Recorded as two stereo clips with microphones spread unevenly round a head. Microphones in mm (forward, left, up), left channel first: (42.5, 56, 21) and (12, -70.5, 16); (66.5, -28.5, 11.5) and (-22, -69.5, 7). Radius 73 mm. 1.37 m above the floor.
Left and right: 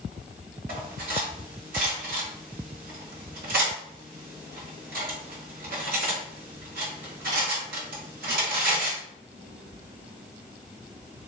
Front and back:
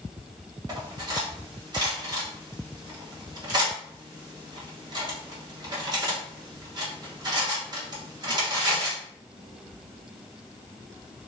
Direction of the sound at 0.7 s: 120° right.